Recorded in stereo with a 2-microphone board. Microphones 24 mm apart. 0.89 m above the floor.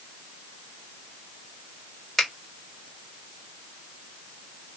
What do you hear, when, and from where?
2.2 s a finger snap: 20° left (ahead or behind), 1.8 m